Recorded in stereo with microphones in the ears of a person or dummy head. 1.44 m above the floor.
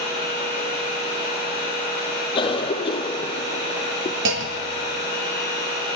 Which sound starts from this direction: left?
A cough, at 2.4 s.